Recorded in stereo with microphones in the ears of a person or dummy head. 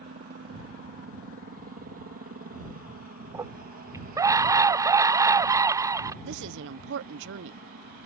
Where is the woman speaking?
70° right (ahead or behind).